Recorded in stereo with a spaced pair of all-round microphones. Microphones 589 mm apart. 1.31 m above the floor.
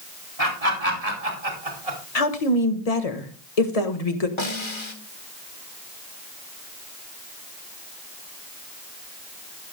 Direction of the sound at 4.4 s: 50° left (ahead or behind).